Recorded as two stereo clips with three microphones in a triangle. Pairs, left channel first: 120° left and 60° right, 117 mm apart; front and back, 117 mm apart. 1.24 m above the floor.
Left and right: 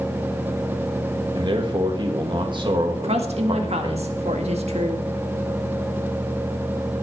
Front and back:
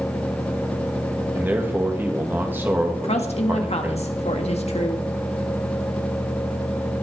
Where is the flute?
No flute in this recording.